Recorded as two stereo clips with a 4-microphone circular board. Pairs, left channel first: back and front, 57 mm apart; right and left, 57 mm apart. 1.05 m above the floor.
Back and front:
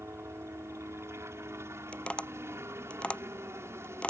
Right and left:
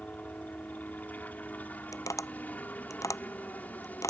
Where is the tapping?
110° right.